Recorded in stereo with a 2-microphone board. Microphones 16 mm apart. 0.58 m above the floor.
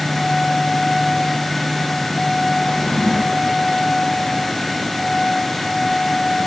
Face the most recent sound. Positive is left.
turn(degrees=60)  # may be behind; listen again after turning